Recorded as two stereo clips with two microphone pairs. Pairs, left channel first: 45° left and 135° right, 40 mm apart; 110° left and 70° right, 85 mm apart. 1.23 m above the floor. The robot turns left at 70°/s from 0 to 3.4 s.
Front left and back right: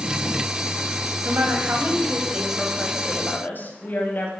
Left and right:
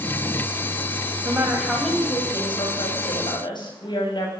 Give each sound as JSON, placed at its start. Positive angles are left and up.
{"t": 1.2, "sound": "a woman speaking", "azimuth_deg": -125, "distance_m": 9.0}